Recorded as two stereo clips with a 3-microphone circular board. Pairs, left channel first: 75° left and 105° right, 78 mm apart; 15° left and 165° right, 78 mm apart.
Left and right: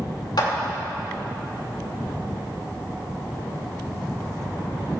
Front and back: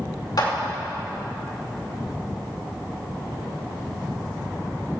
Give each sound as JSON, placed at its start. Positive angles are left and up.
{"t": 0.4, "sound": "a clap", "azimuth_deg": 50, "distance_m": 2.5}